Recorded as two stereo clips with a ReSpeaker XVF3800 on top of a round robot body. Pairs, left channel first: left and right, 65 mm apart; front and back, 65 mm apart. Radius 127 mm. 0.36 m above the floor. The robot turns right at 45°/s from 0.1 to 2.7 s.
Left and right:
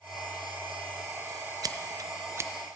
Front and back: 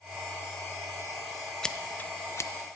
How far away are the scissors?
About 0.7 m.